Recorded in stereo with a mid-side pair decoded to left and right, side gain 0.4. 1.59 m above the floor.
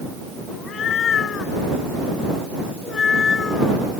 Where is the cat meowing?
70° left; by 3.8 s 45° left.